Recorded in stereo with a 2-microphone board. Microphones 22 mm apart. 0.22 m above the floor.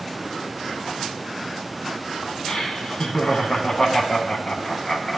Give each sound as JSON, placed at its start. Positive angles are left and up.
{"t": 2.5, "sound": "laughter", "side_deg": 40, "distance_m": 1.6}